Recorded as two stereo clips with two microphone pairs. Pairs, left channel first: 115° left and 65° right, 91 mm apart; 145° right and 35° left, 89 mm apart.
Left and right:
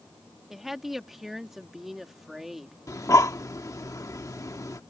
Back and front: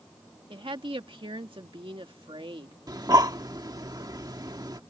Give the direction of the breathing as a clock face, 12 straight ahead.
10 o'clock.